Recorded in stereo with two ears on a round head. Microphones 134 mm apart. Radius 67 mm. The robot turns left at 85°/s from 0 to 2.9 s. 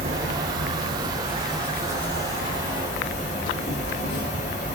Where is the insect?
50° right, 1.7 m; by 4.8 s 65° left, 1.7 m.